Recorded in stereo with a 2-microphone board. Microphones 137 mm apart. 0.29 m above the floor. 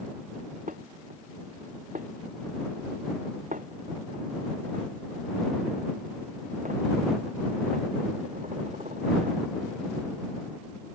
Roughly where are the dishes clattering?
Right.